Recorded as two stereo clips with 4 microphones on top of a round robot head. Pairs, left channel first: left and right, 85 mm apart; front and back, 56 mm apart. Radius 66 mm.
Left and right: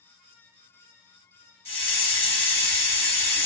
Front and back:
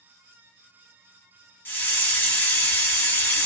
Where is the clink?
No clink in this recording.